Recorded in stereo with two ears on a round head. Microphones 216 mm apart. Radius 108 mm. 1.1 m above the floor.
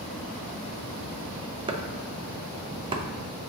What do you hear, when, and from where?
1.7 s chopping: 20° right (ahead or behind), 0.6 m